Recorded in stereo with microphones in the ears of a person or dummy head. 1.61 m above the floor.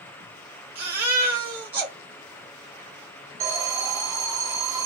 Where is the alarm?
15° right (ahead or behind), 0.6 m.